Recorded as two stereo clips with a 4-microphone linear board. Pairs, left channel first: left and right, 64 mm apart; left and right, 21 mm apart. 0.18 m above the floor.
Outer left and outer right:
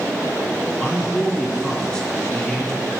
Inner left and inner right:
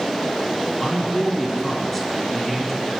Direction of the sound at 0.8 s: 15° left (ahead or behind).